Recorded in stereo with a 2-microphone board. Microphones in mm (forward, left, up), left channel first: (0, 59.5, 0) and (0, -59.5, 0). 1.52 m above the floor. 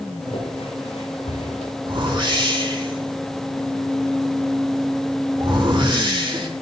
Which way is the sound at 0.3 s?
60° left (ahead or behind).